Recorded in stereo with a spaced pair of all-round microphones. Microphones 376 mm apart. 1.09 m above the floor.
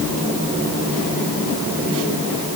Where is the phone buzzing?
No phone buzzing in this recording.